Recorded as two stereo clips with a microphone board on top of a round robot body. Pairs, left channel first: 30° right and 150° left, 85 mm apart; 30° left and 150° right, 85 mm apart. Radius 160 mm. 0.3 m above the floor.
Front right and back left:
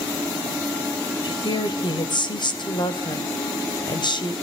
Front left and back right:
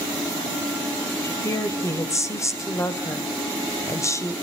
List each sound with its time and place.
1.2 s a woman speaking: 20° right, 3 m